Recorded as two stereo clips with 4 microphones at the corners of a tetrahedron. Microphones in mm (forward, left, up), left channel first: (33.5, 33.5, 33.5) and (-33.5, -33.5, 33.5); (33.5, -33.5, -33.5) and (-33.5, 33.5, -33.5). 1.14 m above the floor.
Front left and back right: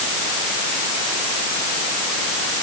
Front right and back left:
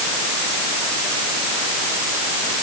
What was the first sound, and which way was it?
Only background noise.